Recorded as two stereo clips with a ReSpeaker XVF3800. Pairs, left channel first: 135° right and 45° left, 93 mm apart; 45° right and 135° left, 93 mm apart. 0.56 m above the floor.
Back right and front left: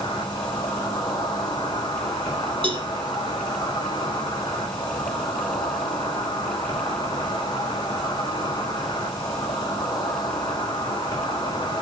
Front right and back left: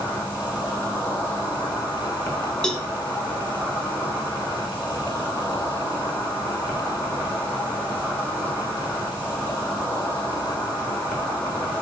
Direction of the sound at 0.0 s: 110° right.